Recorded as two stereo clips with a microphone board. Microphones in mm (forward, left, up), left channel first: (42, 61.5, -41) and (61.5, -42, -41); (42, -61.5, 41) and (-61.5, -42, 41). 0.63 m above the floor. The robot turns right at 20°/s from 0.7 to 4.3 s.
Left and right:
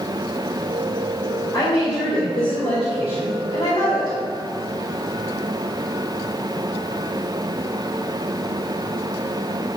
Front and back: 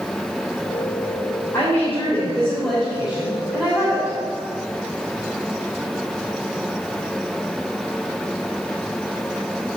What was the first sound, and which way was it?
A woman speaking, 55° left.